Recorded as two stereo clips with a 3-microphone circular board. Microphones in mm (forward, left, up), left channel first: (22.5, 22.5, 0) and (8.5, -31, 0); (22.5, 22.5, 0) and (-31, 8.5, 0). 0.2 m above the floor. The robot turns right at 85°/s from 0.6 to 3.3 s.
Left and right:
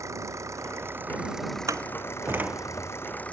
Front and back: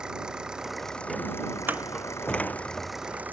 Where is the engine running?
90° right; by 3.3 s 140° left.